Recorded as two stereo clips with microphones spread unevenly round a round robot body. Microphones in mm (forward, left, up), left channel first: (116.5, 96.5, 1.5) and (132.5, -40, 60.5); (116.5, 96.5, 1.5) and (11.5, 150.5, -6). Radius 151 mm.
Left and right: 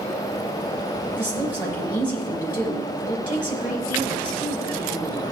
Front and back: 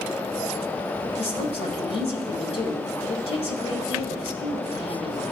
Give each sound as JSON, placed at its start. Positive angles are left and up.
{"t": 1.2, "sound": "a woman speaking", "azimuth_deg": 0, "distance_m": 5.0}